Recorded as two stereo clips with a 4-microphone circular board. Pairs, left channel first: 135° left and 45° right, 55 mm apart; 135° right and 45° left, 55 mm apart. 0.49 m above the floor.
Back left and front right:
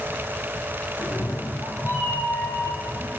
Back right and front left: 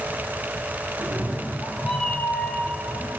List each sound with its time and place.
1.0 s a cat meowing: 85° left, 0.8 m; by 3.1 s 170° left, 2 m